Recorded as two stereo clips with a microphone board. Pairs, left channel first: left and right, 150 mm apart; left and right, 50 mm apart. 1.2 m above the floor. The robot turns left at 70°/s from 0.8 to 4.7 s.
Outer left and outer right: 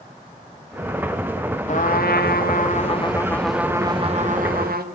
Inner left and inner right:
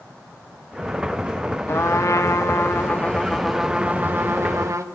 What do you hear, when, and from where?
1.7 s a trumpet: 125° left, 1.8 m; by 4.8 s 85° right, 1.8 m